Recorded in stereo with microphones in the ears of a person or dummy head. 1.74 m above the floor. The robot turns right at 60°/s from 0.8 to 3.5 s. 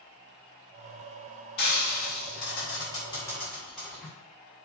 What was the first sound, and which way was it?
Frying, 60° left (ahead or behind).